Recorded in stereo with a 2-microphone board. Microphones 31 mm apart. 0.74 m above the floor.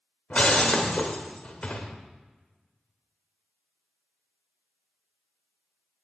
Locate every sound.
0.3 s breaking glass: 40° left (ahead or behind), 1.1 m